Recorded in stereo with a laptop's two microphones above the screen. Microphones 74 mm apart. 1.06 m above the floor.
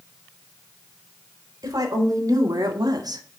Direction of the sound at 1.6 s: 55° right (ahead or behind).